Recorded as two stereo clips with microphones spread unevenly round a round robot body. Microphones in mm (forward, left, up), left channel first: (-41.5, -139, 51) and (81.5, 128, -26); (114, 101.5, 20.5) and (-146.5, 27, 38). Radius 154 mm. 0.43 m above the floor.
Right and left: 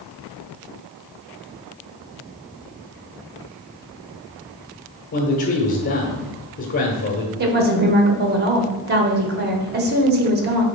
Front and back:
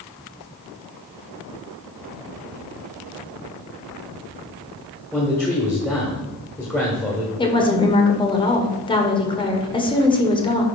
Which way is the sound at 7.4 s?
80° left.